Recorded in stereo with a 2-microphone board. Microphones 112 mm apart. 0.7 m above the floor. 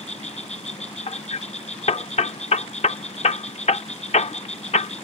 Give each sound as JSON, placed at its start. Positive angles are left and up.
{"t": 0.0, "sound": "an insect", "side_deg": 80}
{"t": 1.1, "sound": "hammering", "side_deg": 75}